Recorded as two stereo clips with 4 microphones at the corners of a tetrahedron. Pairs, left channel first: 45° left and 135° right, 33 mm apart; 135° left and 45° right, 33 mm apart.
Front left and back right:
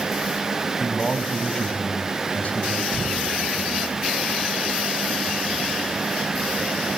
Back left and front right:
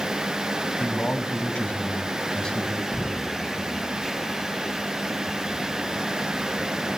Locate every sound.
0.8 s a man speaking: 125° left, 2.5 m; by 3.9 s 45° left, 3 m
2.9 s knocking: 150° right, 3.5 m